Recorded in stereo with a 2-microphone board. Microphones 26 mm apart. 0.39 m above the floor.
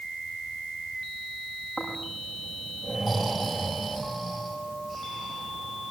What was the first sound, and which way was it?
Snoring, 5° right (ahead or behind).